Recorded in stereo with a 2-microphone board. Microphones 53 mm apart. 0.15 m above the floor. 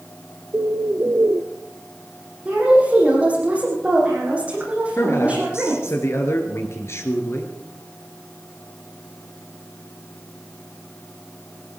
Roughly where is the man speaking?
Left.